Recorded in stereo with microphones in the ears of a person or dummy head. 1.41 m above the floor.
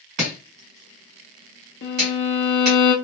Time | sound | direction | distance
0.2 | chopping | 40° right (ahead or behind) | 1.6 m
1.8 | a violin | 45° left (ahead or behind) | 0.7 m